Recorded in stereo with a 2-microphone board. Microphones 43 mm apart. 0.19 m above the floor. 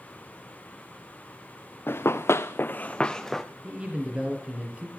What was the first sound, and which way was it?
Running footsteps, 60° left (ahead or behind).